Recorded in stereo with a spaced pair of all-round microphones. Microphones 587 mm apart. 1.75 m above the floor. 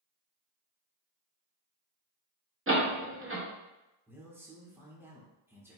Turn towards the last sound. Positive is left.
turn(degrees=-5)  # may be behind; listen again after turning